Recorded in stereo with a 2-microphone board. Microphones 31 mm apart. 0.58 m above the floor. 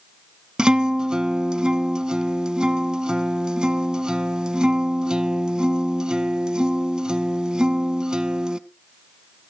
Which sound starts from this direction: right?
A guitar, at 0.6 s.